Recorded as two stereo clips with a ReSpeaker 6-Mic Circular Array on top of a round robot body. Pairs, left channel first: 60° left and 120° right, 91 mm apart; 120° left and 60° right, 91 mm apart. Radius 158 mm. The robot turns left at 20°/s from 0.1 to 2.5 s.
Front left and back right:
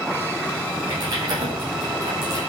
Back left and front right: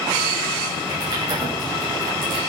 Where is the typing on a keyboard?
70° right, 7.5 m; by 2.4 s 100° right, 7.5 m.